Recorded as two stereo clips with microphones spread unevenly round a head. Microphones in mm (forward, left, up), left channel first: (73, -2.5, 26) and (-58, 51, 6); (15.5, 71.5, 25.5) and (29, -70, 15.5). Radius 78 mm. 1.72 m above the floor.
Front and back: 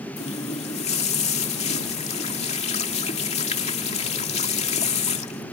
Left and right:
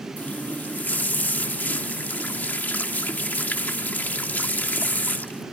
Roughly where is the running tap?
Ahead.